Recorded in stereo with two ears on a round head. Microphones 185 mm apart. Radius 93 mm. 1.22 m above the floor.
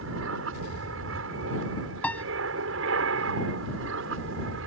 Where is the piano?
5° left (ahead or behind).